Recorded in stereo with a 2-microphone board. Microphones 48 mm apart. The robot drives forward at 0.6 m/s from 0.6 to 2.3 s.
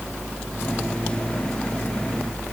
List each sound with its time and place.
Only background noise.